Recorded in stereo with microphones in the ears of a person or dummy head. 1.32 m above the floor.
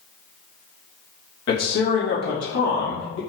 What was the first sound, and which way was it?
A man speaking, 65° left (ahead or behind).